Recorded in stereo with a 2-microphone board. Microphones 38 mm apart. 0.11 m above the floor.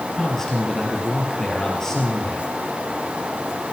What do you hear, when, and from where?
0.1 s a man speaking: 10° left (ahead or behind), 2.5 m